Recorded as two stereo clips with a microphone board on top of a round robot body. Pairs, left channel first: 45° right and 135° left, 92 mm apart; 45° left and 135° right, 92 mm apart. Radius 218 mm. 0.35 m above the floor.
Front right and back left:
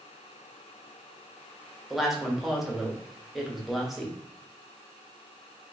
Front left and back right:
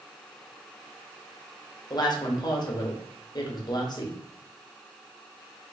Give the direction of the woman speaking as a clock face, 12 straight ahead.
10 o'clock.